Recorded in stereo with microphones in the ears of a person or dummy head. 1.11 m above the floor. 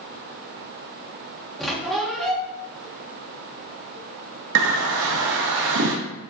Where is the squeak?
Centre (ahead or behind), 1.1 m.